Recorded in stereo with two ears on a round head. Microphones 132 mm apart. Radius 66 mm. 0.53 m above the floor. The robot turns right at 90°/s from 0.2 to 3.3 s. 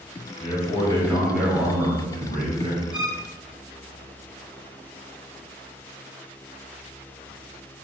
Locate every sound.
0.4 s a man speaking: 100° left, 1.2 m; by 2.8 s 45° right, 1.2 m
2.9 s a violin: 10° right (ahead or behind), 0.6 m; by 3.2 s 10° left (ahead or behind), 0.6 m